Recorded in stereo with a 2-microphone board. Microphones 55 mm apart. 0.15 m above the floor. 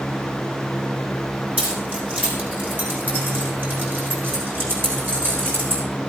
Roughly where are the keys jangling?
Right.